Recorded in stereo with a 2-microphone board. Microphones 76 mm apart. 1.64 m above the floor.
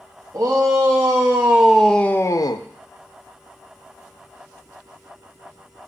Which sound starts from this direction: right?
A shout, at 0.3 s.